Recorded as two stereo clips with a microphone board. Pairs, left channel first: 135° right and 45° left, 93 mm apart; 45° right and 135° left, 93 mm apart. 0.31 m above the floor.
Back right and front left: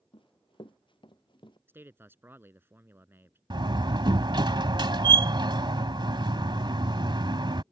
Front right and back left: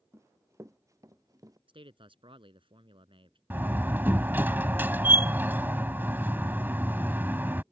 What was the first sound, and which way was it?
Running footsteps, 165° right.